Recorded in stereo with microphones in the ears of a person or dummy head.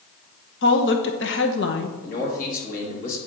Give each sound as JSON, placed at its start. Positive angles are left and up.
{"t": 0.6, "sound": "a woman speaking", "side_deg": 55, "distance_m": 0.9}
{"t": 2.0, "sound": "a man speaking", "side_deg": 50, "distance_m": 2.5}